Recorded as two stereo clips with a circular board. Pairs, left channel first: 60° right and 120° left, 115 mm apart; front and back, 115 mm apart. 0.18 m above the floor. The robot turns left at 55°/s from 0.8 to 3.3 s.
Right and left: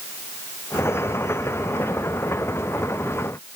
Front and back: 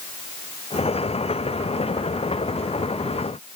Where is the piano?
I don't hear a piano.